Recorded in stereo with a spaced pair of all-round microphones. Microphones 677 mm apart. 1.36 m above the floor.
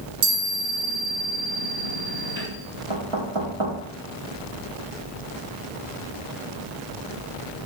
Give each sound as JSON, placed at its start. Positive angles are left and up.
{"t": 0.2, "sound": "a chime", "side_deg": -75, "distance_m": 4.5}
{"t": 2.9, "sound": "knocking", "side_deg": -45, "distance_m": 2.5}